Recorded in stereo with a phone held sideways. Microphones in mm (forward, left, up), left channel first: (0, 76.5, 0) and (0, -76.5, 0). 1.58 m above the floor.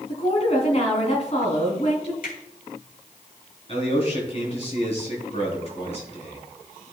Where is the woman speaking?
45° left (ahead or behind), 3 m.